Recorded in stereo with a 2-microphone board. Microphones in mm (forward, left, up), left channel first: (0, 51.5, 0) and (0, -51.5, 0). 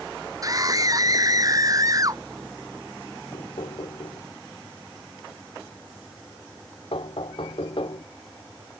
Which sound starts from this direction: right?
A scream, at 0.4 s.